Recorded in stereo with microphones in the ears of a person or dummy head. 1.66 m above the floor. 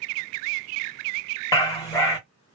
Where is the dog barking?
15° left (ahead or behind), 1.1 m.